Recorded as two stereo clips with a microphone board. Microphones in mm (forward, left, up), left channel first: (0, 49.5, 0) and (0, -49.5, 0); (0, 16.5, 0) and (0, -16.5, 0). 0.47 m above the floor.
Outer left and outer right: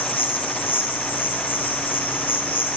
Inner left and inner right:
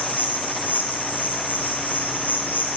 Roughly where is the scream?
No scream in this recording.